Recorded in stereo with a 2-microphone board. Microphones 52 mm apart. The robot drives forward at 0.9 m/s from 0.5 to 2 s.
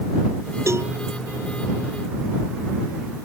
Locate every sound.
0.7 s a cowbell: 60° right (ahead or behind)